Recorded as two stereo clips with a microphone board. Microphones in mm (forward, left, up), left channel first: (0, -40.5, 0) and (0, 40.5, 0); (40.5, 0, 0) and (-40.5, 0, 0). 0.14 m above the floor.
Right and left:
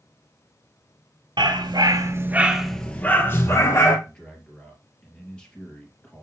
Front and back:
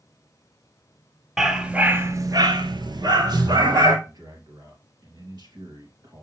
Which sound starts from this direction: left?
A dog barking, at 1.4 s.